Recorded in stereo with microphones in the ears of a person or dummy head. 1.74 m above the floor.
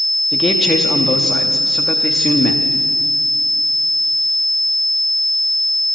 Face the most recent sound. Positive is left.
turn(degrees=0)  # may be behind; listen again after turning